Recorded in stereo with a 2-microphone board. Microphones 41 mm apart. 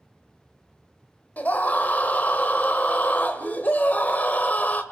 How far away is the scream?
About 1.5 m.